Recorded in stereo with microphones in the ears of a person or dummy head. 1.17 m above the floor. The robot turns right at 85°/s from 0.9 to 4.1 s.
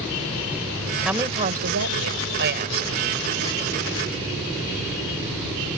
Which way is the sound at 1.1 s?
Straight behind.